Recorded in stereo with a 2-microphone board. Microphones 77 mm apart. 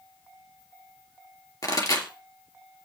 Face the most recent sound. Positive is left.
turn(degrees=50)  # may be behind; listen again after turning